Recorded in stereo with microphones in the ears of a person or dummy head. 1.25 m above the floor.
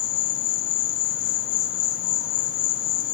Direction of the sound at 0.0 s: 60° left (ahead or behind).